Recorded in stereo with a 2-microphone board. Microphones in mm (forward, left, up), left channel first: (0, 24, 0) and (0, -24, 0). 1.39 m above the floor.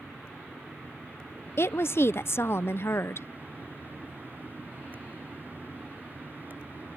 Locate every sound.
1.6 s a woman speaking: 55° left (ahead or behind)